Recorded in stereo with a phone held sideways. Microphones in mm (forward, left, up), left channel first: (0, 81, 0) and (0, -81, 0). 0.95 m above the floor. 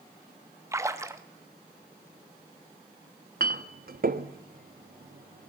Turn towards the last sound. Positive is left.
turn(degrees=-65)  # may be behind; listen again after turning